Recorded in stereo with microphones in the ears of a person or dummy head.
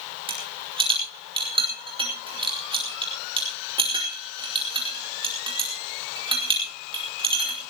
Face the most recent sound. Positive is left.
turn(degrees=-25)  # may be behind; listen again after turning